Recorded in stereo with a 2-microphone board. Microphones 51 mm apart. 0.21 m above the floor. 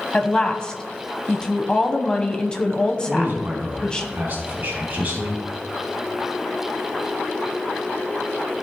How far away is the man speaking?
About 1.9 m.